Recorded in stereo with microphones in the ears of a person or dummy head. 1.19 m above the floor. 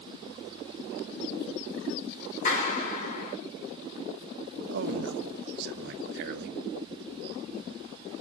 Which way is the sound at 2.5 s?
45° left (ahead or behind).